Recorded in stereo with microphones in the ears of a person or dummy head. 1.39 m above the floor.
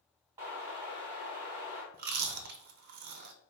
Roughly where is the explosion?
Centre.